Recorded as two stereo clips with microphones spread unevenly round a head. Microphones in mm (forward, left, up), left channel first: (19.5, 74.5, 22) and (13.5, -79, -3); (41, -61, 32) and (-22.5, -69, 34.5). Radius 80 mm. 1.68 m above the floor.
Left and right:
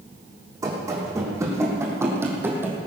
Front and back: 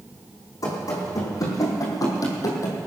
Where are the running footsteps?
20° right, 4.5 m; by 2.9 s 10° right, 2.5 m.